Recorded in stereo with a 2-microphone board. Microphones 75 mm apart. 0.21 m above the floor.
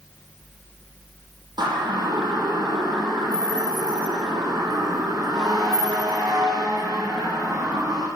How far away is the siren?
About 8 m.